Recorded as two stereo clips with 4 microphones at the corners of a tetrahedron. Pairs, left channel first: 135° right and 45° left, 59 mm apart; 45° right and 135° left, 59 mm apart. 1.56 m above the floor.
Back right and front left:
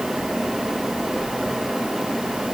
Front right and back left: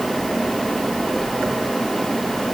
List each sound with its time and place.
Only background noise.